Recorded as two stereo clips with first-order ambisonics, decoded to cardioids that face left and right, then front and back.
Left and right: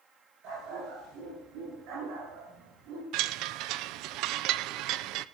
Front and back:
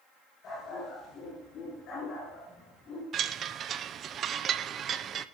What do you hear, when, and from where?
0.4 s a dog barking: 60° right, 10 m; by 3.0 s 65° right, 7 m
3.1 s a chime: 120° right, 0.6 m